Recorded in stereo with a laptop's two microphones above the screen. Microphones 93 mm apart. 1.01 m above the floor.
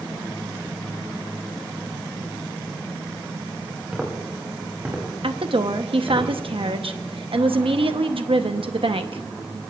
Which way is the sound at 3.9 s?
10° right (ahead or behind).